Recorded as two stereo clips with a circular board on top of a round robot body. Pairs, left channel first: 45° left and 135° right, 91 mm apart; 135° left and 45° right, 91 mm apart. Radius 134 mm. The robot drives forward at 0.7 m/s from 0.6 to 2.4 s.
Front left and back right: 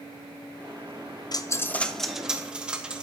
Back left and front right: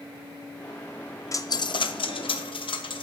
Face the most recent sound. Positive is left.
turn(degrees=145)